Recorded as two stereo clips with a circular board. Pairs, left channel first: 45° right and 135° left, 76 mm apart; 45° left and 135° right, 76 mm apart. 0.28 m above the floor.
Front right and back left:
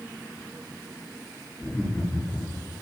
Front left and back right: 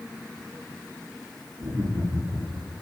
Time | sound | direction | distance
1.6 | laughter | 135° right | 6 m